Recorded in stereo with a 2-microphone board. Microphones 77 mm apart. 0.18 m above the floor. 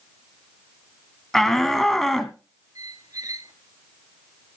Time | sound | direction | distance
1.3 | a shout | 5° left (ahead or behind) | 1.1 m
2.8 | a squeak | 50° right (ahead or behind) | 2.5 m